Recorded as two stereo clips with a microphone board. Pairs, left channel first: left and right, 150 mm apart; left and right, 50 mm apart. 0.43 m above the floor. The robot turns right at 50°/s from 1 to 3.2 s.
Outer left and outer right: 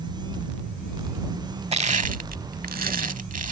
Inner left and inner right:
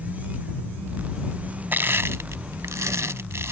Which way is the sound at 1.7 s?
45° right (ahead or behind).